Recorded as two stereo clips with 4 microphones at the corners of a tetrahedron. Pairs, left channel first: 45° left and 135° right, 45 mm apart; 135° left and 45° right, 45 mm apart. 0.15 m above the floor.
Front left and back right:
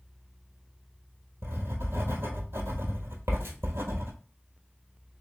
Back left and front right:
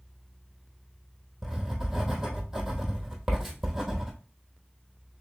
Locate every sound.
1.4 s writing: 125° right, 1.2 m